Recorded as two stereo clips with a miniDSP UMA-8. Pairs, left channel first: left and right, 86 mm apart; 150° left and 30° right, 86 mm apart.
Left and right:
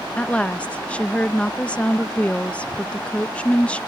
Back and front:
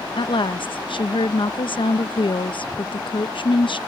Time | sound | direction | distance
0.2 | a woman speaking | 165° left | ?